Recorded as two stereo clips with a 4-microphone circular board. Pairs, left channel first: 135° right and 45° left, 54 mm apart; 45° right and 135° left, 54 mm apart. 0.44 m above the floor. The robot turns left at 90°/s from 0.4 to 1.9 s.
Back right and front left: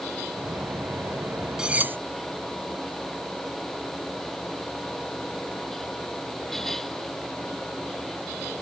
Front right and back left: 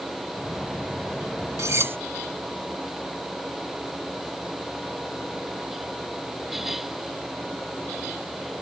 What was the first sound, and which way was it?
Cutlery clinking, 120° left.